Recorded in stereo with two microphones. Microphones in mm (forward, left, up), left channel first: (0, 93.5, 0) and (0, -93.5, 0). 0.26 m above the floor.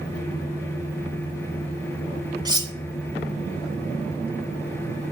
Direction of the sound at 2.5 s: 20° right (ahead or behind).